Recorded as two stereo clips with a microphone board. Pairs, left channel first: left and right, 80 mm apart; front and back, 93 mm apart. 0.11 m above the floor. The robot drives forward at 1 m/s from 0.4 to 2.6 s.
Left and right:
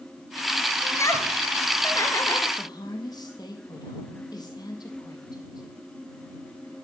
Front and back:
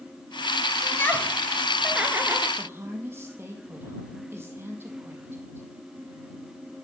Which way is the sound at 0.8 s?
50° left.